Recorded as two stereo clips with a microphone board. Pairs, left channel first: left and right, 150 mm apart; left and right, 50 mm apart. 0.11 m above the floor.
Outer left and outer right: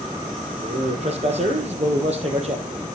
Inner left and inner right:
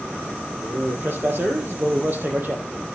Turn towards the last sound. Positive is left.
turn(degrees=-50)  # may be behind; listen again after turning